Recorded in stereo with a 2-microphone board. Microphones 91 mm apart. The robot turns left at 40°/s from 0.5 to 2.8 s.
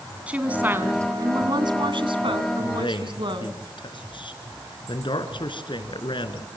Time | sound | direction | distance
0.3 | a woman speaking | 15° right | 2.5 m
2.6 | a man speaking | 55° left (ahead or behind) | 3.5 m